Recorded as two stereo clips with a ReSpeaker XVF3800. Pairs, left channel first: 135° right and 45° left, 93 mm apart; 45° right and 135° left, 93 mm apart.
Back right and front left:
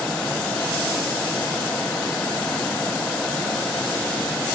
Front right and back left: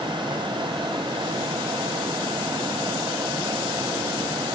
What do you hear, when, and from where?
Only background noise.